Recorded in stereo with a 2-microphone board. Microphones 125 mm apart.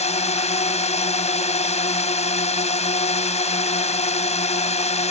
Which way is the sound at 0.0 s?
60° left (ahead or behind).